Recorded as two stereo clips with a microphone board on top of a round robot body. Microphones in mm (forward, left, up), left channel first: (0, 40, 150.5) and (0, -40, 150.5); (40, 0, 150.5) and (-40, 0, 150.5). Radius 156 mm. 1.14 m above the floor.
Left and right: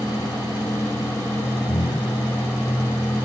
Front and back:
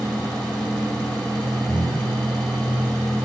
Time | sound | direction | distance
1.7 | breathing | 30° right | 8.5 m